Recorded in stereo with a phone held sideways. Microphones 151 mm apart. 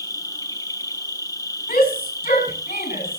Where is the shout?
65° left (ahead or behind), 8.5 m.